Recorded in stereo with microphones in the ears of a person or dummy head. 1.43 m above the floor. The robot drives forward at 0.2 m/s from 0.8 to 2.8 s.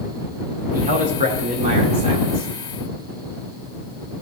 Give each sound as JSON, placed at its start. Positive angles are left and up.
{"t": 0.7, "sound": "a man speaking", "side_deg": -45, "distance_m": 1.0}